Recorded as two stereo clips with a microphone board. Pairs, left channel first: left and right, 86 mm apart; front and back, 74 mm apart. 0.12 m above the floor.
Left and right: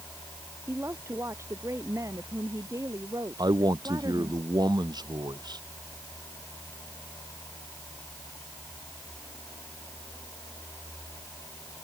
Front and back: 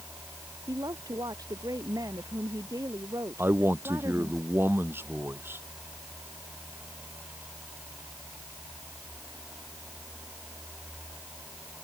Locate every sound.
0.7 s a woman speaking: 150° right; by 4.4 s 135° right
3.4 s a man speaking: 125° right